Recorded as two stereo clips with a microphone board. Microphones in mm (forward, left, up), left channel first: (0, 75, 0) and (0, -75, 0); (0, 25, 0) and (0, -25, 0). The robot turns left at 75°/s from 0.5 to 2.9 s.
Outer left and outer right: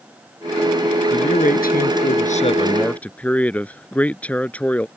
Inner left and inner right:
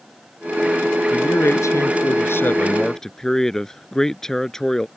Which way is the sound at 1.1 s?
145° left.